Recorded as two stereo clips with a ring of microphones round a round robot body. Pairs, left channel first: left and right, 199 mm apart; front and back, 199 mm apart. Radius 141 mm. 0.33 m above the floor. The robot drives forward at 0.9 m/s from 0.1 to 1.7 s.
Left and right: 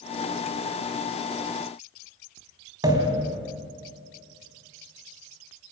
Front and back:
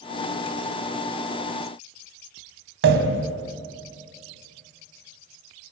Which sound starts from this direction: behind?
A pop, at 2.8 s.